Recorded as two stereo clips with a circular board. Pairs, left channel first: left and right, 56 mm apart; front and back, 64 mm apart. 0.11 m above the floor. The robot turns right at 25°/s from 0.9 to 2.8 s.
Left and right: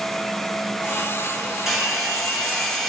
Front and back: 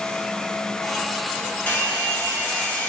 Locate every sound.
1.7 s a hair dryer: 10° right, 0.8 m; by 2.9 s 20° left, 0.8 m